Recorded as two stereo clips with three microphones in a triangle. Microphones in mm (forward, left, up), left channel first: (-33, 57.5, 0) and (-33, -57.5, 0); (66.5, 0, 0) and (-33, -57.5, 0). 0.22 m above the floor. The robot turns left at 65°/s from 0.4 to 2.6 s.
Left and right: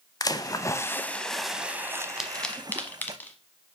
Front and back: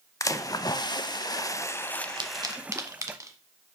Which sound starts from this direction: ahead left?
A splash, at 0.2 s.